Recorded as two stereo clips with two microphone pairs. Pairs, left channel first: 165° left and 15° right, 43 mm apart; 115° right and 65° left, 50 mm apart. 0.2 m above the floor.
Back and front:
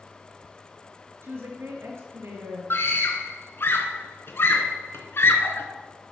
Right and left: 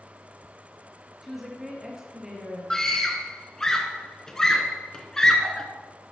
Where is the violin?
No violin in this recording.